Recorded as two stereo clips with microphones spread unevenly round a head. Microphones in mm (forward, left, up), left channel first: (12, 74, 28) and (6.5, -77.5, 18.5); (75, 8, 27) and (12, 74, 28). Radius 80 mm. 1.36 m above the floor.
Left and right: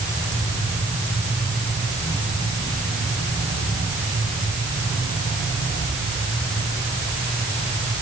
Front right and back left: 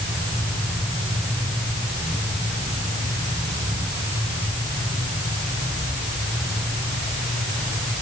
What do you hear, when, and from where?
Only background noise.